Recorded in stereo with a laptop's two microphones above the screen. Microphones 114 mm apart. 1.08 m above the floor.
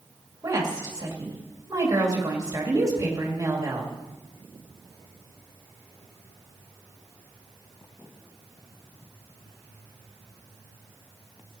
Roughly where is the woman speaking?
Right.